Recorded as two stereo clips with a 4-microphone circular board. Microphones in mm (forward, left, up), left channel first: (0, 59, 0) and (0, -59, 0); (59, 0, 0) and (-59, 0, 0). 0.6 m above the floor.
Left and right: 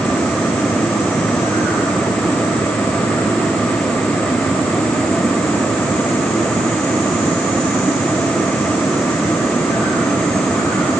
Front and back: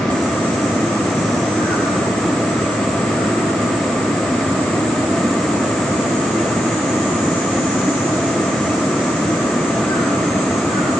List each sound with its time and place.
Only background noise.